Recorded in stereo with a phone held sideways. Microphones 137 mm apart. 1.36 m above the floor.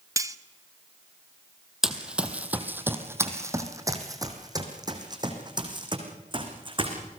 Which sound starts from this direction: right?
Cutlery clinking, at 0.2 s.